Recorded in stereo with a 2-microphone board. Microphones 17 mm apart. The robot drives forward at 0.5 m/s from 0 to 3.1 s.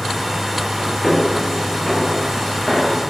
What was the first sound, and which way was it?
Footsteps, 25° left (ahead or behind).